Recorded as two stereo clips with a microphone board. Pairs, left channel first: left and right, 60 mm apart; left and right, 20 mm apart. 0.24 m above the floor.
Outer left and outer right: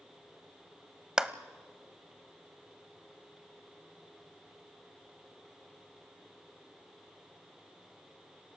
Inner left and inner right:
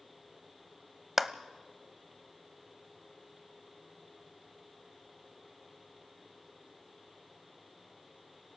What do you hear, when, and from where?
1.2 s a clap: 15° right (ahead or behind), 0.7 m